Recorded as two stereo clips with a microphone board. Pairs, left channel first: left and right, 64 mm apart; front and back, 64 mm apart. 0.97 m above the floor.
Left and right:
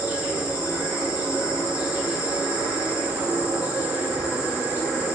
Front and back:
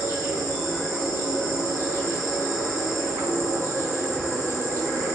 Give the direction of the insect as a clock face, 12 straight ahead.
5 o'clock.